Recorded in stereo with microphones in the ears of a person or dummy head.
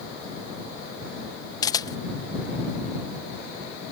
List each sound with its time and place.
1.6 s a camera shutter: 20° left (ahead or behind)